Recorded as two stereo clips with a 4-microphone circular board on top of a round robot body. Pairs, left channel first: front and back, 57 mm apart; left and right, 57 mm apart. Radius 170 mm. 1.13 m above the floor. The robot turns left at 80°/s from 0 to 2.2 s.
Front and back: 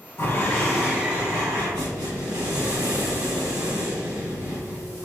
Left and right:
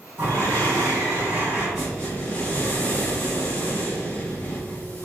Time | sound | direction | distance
0.2 | breathing | 45° right | 1.6 m